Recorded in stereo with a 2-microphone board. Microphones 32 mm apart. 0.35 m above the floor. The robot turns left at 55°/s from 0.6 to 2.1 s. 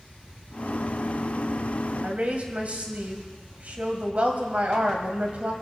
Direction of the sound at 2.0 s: 50° right (ahead or behind).